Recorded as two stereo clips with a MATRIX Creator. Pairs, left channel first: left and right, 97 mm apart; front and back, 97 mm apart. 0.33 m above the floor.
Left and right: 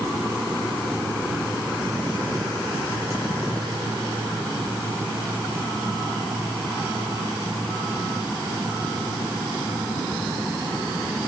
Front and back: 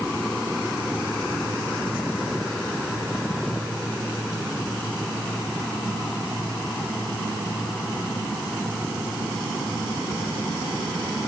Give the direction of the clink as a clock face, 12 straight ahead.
I don't hear a clink.